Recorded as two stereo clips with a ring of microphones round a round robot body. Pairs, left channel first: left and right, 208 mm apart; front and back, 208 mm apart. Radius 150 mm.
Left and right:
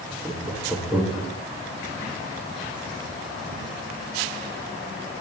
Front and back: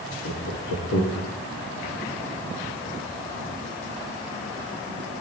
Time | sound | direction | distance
0.2 | laughter | 5° right | 2.5 m